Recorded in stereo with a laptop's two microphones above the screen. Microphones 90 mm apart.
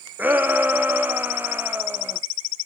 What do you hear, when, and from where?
0.2 s a shout: 20° right (ahead or behind), 0.8 m